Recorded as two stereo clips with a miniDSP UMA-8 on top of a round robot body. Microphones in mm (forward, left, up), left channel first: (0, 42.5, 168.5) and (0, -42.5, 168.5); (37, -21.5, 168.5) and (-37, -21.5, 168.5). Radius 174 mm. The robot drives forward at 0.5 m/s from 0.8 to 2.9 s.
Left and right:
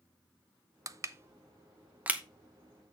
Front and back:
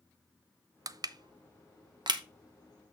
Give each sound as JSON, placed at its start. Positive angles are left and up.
{"t": 0.9, "sound": "crushing", "azimuth_deg": -140, "distance_m": 0.5}